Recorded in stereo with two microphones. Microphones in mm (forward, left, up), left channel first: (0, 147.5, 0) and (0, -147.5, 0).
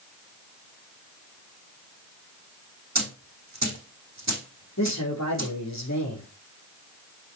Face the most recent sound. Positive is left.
turn(degrees=65)  # may be behind; listen again after turning